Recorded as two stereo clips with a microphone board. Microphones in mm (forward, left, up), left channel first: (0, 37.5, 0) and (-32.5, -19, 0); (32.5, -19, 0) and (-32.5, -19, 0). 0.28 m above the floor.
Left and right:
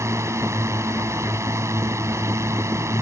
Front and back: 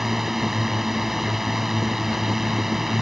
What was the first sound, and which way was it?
A drone, 95° right.